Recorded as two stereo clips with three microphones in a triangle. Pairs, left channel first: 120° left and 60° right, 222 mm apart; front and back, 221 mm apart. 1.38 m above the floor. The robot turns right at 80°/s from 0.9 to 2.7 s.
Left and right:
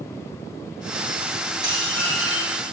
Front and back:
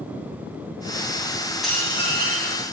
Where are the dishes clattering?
90° right, 8 m; by 2.6 s 15° right, 8 m.